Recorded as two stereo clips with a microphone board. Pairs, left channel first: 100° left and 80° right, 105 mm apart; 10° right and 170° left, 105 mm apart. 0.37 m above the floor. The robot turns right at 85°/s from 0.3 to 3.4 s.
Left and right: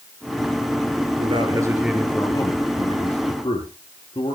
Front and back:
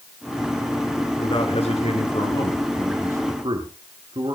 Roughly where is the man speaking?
Ahead right.